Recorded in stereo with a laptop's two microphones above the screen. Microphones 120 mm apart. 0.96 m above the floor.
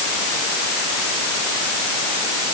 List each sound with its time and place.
Only background noise.